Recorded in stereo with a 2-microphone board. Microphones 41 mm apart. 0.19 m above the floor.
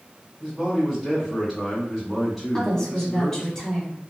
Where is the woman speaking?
15° left (ahead or behind), 1.0 m.